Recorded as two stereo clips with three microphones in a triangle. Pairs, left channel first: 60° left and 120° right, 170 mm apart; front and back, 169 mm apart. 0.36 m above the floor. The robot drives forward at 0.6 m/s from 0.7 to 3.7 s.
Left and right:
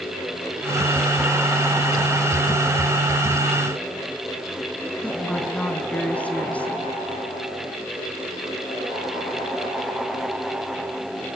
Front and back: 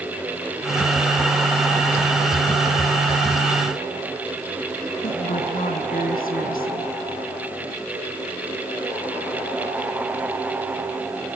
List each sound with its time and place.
5.0 s a woman speaking: 20° right, 3.5 m